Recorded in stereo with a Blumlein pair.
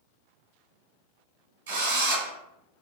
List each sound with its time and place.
1.7 s a drill: 65° right, 1.4 m